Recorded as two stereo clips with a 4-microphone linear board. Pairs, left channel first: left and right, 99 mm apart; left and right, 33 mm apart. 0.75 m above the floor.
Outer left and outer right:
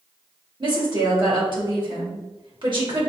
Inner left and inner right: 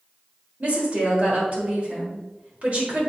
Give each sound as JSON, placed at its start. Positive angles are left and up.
{"t": 0.6, "sound": "a woman speaking", "side_deg": -55, "distance_m": 3.5}